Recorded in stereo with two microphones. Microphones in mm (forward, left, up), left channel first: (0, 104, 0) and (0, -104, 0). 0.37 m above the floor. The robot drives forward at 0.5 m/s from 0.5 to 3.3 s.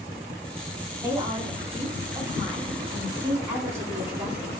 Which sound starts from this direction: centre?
A woman speaking, at 1.0 s.